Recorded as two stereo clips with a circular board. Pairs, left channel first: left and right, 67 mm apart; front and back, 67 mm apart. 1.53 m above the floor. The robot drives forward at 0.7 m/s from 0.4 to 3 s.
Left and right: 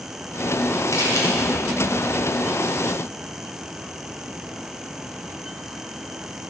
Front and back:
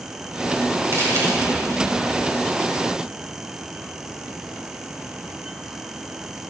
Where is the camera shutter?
135° left, 9 m.